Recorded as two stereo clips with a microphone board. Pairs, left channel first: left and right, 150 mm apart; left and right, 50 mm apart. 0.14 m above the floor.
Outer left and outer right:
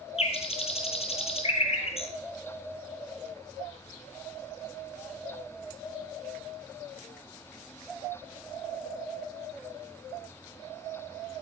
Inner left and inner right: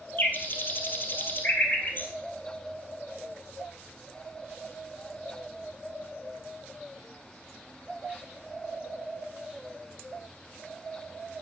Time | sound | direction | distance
0.2 | a bird | 45° left (ahead or behind) | 1.5 m